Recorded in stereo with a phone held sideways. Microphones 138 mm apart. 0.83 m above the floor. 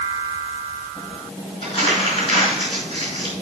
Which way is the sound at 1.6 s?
40° left (ahead or behind).